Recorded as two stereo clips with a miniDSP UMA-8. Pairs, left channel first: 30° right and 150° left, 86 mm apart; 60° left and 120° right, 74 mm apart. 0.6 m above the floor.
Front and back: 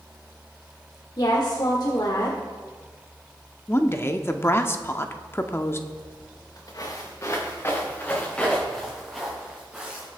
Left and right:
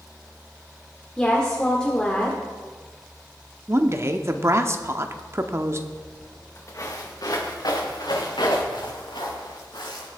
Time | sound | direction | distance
1.2 | a woman speaking | 15° right | 1.5 m
3.7 | a woman speaking | 80° right | 0.8 m
5.9 | footsteps | straight ahead | 4 m